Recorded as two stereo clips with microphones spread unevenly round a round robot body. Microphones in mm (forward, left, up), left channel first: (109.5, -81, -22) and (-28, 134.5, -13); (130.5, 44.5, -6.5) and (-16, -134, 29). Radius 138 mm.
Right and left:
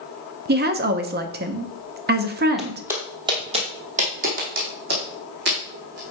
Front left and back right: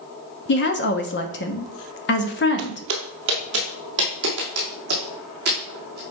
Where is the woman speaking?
75° left, 0.8 m.